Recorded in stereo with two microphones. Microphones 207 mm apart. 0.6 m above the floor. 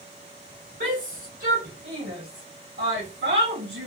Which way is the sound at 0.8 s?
60° right (ahead or behind).